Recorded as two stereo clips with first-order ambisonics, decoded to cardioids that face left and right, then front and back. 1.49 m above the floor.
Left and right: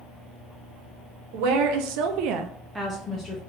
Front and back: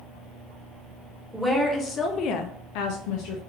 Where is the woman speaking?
90° right, 1.1 m; by 3.4 s 30° left, 0.8 m.